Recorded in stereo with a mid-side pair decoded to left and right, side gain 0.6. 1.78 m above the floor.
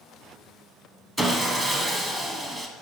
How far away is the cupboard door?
I don't hear a cupboard door.